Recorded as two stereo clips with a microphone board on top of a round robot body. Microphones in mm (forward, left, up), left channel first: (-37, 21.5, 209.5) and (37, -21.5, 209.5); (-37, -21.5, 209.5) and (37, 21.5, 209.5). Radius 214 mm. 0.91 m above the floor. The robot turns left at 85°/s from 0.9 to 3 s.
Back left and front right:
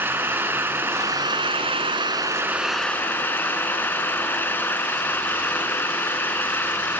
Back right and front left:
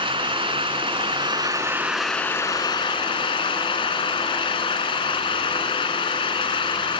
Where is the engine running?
35° left; by 7.0 s 140° right.